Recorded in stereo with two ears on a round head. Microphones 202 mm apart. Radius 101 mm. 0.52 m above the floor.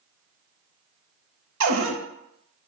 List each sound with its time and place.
1.6 s a cupboard door: 85° right, 0.7 m